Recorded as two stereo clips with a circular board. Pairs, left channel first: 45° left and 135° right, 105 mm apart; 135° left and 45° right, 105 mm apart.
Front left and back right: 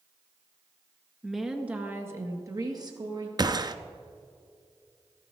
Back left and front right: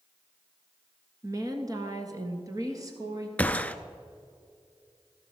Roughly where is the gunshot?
Behind right.